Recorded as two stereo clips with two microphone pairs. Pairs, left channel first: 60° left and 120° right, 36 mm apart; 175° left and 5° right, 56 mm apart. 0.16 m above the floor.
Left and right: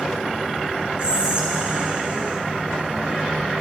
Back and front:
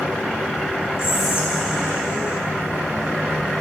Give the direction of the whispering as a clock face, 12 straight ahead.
6 o'clock.